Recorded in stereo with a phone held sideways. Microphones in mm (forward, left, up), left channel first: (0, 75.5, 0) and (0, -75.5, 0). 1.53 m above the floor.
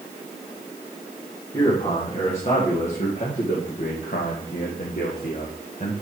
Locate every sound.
1.5 s a man speaking: 35° left (ahead or behind), 3.5 m; by 5.9 s 55° left (ahead or behind), 1.7 m